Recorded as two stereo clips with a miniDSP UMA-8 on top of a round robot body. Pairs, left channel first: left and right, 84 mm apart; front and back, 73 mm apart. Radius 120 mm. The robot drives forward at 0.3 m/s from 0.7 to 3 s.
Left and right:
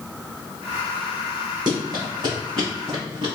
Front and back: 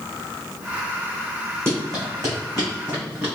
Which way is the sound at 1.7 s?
130° right.